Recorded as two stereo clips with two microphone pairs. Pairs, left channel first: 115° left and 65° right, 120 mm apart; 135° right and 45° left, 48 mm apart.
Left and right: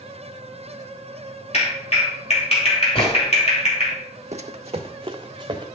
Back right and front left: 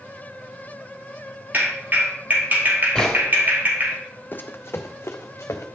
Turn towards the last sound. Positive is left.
turn(degrees=-115)